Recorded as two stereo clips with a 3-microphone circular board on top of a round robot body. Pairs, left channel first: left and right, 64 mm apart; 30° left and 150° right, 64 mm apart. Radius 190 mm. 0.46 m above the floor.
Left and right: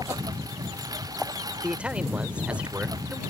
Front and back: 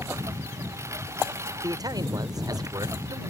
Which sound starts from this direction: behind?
A man speaking, at 1.6 s.